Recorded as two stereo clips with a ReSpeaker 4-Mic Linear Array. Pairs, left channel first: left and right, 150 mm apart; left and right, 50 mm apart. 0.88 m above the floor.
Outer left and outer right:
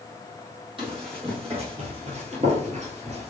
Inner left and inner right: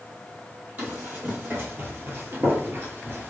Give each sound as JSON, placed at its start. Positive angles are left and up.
{"t": 0.8, "sound": "running footsteps", "side_deg": -35, "distance_m": 1.8}